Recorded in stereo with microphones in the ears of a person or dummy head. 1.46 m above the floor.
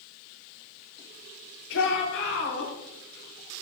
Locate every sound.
1.7 s a shout: 70° left (ahead or behind), 5 m; by 2.7 s 65° left (ahead or behind), 4.5 m